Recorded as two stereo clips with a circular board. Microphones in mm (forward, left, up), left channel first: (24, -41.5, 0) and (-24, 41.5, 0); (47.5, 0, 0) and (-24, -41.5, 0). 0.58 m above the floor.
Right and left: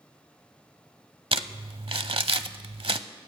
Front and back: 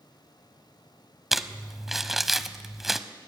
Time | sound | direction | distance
1.3 | crumpling | 125° left | 0.8 m